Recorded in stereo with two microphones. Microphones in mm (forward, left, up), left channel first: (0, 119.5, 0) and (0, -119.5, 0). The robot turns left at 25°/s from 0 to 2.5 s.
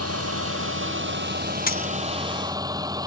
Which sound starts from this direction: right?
A vehicle, at 0.0 s.